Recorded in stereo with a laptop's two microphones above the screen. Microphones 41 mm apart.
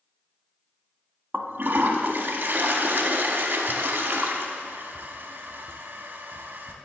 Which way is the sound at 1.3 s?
50° right (ahead or behind).